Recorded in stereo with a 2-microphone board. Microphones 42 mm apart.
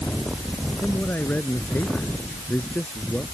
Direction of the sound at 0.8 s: 45° left (ahead or behind).